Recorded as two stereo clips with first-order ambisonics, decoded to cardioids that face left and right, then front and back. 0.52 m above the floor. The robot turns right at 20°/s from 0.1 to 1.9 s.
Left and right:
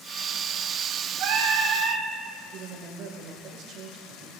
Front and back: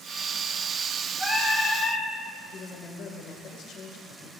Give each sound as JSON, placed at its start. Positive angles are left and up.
{"t": 1.2, "sound": "singing", "azimuth_deg": -90, "distance_m": 2.5}
{"t": 2.5, "sound": "a woman speaking", "azimuth_deg": -45, "distance_m": 1.5}